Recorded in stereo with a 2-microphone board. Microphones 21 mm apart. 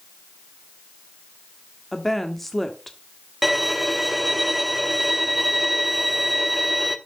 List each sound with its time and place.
1.9 s a woman speaking: 10° left (ahead or behind), 1.3 m
3.4 s a violin: 5° right (ahead or behind), 0.8 m